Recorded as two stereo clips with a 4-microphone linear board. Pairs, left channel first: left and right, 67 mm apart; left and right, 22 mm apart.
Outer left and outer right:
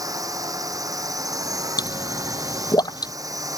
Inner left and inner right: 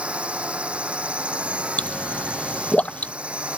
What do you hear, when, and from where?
0.0 s a drone: 55° right (ahead or behind)
1.8 s a pop: 75° left (ahead or behind)